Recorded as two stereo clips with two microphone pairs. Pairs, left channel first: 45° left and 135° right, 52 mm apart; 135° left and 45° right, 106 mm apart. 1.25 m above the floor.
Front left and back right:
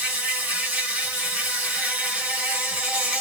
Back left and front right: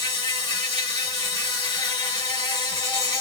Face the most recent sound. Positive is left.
turn(degrees=165)